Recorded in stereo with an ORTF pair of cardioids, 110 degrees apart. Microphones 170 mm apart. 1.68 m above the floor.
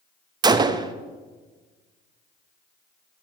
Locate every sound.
0.4 s a gunshot: 25° right, 0.7 m